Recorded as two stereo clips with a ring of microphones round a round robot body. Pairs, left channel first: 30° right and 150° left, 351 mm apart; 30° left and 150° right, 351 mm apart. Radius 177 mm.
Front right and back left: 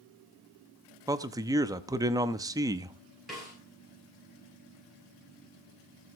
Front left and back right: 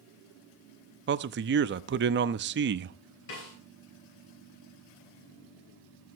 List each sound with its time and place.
1.1 s a man speaking: 140° right, 0.7 m
3.3 s a snare drum: 60° left, 9 m